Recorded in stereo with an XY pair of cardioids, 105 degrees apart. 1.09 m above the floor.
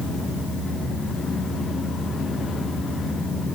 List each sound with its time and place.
Only background noise.